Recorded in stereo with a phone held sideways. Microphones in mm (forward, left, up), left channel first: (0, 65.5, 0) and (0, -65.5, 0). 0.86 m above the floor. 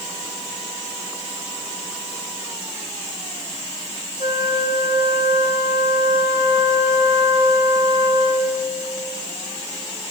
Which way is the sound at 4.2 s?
80° right.